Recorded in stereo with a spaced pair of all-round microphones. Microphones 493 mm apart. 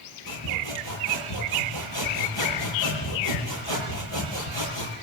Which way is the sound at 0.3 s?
60° left (ahead or behind).